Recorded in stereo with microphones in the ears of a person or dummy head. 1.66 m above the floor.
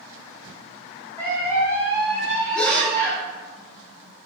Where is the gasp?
5° left (ahead or behind), 1.0 m.